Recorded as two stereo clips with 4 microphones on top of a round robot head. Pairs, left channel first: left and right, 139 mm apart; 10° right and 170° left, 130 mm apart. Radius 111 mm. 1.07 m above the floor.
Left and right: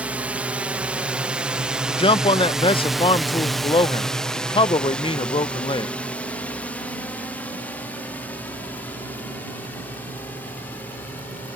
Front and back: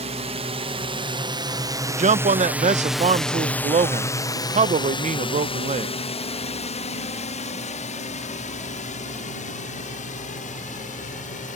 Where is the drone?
170° right; by 11.6 s 10° left.